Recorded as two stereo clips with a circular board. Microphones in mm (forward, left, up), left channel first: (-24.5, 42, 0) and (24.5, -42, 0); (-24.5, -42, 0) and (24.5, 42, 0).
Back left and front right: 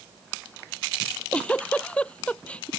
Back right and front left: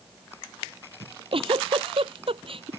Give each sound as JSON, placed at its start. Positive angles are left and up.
{"t": 1.0, "sound": "a giggle", "azimuth_deg": 45}